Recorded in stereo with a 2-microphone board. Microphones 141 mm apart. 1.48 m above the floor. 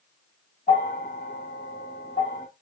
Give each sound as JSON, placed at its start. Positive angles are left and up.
{"t": 0.7, "sound": "a bell", "side_deg": 85, "distance_m": 2.5}